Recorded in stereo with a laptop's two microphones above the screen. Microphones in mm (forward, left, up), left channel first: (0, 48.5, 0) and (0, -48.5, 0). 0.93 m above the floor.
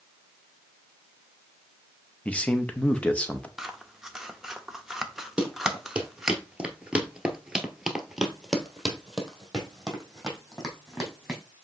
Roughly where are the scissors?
Centre.